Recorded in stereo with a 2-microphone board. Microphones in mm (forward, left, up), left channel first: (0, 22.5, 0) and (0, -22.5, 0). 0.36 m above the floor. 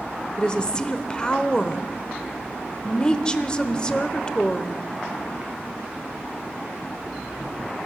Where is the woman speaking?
20° left (ahead or behind), 0.9 m.